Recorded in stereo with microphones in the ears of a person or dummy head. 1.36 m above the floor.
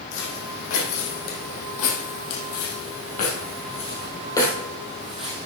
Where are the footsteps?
70° left (ahead or behind), 4.5 m; by 5.5 s 5° right (ahead or behind), 3 m.